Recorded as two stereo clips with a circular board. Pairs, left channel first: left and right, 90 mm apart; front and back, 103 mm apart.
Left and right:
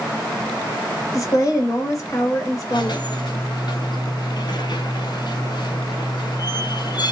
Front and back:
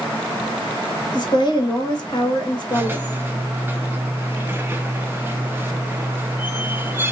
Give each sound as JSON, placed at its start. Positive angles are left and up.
{"t": 1.1, "sound": "a woman speaking", "azimuth_deg": 40, "distance_m": 1.1}
{"t": 2.7, "sound": "a squeak", "azimuth_deg": 110, "distance_m": 0.5}